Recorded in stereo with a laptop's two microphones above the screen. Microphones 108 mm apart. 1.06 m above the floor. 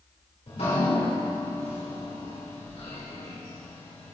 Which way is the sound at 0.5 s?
80° left.